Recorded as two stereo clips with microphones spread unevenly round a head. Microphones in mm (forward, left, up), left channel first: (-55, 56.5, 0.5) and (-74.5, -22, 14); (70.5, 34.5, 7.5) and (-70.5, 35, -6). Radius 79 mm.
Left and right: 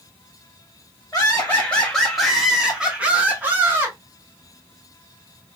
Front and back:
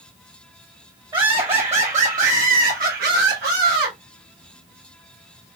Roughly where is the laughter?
Behind left.